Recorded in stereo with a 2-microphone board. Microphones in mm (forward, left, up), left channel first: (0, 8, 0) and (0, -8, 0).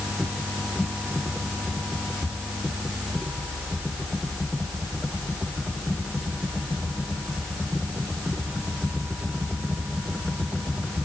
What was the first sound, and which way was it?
Only background noise.